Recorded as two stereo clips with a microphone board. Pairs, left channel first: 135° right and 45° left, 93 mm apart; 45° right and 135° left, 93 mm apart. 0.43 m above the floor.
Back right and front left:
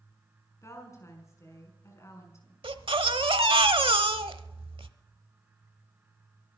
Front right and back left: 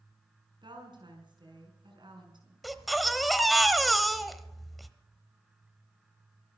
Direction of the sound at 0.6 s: 165° left.